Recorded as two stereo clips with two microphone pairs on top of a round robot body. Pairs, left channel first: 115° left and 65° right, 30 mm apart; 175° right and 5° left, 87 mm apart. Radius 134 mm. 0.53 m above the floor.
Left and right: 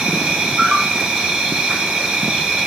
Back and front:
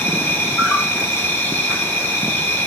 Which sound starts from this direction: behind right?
An insect, at 0.0 s.